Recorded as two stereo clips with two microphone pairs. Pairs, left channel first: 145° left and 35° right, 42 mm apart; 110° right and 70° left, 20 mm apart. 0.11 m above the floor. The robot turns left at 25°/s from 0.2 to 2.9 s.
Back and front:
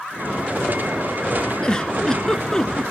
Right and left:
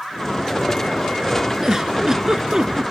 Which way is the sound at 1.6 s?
100° left.